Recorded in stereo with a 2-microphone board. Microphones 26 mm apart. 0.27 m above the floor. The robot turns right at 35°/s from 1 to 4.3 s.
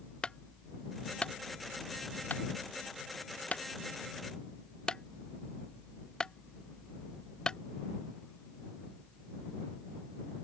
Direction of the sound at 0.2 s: 35° left (ahead or behind).